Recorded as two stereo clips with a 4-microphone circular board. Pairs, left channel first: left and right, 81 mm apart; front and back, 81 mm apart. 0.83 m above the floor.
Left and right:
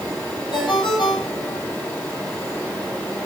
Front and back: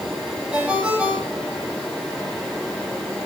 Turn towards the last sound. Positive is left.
turn(degrees=105)